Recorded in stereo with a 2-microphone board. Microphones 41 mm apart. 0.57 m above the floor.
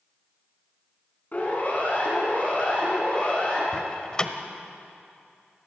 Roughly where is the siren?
Left.